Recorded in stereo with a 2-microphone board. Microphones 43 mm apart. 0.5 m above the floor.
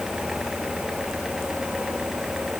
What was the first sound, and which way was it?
Only background noise.